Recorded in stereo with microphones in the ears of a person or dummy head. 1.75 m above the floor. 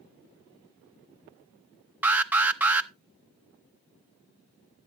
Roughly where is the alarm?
Centre.